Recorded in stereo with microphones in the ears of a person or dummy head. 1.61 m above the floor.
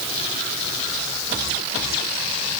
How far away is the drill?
No drill in this recording.